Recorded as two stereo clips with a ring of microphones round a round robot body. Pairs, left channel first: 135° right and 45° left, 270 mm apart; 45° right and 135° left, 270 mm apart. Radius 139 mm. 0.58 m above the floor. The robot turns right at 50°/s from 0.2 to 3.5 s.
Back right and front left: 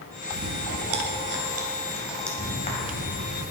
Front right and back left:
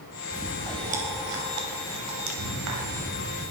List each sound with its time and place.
0.3 s chewing: 40° left, 2.5 m; by 3.5 s 160° right, 2.5 m